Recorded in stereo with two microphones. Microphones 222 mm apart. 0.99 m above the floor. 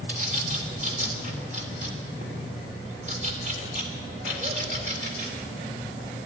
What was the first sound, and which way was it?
A bird, 30° right (ahead or behind).